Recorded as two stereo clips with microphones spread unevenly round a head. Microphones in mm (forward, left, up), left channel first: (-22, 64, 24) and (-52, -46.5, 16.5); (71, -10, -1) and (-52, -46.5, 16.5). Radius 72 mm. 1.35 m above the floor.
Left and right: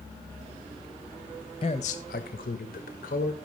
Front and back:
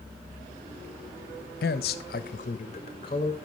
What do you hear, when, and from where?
1.6 s a man speaking: 20° left, 1.0 m; by 3.4 s 80° left, 2 m